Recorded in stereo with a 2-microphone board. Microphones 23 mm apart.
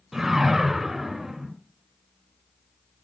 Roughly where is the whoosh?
Centre.